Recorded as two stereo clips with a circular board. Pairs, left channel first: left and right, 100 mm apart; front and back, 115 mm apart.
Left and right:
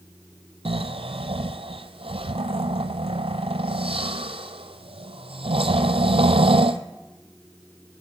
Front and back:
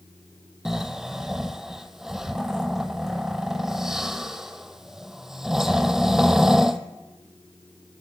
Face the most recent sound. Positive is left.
turn(degrees=-95)